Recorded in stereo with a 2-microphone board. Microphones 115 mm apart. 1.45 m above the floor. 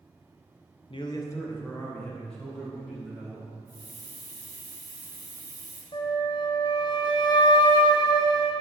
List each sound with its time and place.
0.9 s a man speaking: 50° left (ahead or behind), 0.6 m; by 3.5 s centre (ahead or behind), 4 m
3.7 s a hiss: 35° right (ahead or behind), 1.6 m
5.9 s a flute: 40° left (ahead or behind), 0.6 m